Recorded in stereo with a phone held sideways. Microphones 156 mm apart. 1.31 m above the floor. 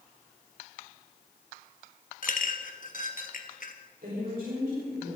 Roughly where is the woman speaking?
Right.